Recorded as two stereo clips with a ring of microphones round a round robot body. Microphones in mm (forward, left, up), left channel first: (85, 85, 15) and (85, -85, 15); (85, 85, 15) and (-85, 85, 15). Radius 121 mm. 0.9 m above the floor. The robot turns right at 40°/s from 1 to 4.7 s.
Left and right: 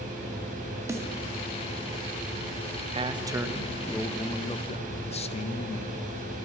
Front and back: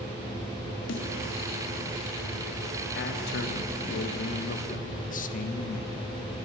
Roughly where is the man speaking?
Ahead right.